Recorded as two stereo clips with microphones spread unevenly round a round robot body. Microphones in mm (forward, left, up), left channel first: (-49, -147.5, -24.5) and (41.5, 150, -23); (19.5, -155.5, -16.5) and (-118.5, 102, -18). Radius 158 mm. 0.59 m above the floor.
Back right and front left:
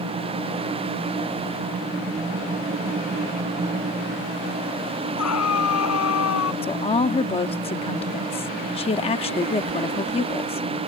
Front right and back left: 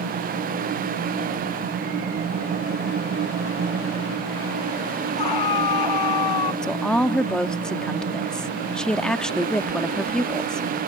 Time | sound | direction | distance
5.2 | a scream | 65° right | ?
6.6 | a woman speaking | 145° right | ?